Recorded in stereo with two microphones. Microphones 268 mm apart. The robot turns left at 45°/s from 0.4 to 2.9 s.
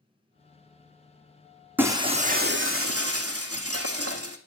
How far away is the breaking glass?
About 1.9 m.